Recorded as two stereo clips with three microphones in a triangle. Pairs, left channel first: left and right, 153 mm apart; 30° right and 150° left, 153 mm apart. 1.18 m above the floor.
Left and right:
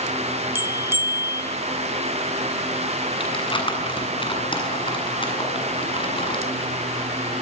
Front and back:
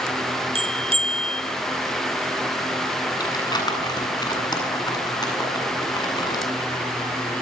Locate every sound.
0.6 s a bell: 160° right, 2.5 m
3.2 s crumpling: 35° left, 8 m